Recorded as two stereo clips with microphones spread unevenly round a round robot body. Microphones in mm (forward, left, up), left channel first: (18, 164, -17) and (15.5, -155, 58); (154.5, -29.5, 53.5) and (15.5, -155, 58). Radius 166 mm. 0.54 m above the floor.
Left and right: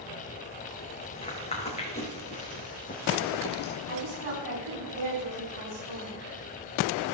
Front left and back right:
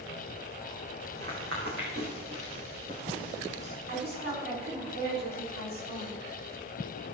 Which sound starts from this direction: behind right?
A woman speaking, at 3.9 s.